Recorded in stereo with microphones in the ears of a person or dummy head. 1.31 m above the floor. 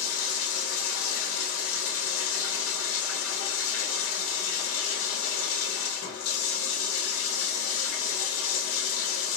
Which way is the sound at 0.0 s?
70° left (ahead or behind).